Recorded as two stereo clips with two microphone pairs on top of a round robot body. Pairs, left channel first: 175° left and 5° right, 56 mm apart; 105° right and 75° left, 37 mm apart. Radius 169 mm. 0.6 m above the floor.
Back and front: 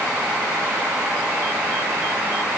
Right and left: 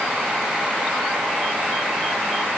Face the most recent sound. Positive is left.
No sound to turn to.